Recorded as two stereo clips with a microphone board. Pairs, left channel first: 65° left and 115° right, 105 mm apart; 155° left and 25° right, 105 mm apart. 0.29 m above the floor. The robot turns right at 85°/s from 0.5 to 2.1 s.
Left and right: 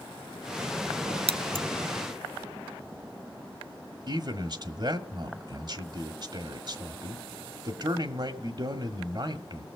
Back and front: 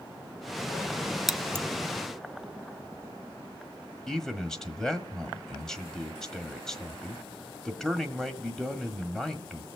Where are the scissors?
110° right, 0.6 m; by 1.6 s 75° right, 0.6 m.